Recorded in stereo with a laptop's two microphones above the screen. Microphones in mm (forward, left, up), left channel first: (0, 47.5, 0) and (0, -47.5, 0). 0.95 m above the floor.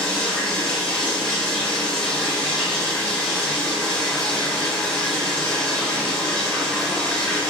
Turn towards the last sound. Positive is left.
turn(degrees=10)  # may be behind; listen again after turning